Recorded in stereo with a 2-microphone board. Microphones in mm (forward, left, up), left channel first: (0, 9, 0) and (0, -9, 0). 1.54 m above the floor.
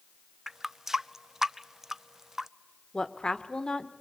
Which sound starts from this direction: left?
A woman speaking, at 2.9 s.